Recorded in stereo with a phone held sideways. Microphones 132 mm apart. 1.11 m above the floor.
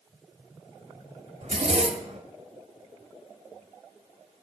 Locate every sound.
1.4 s a zipper: 60° right (ahead or behind), 1.8 m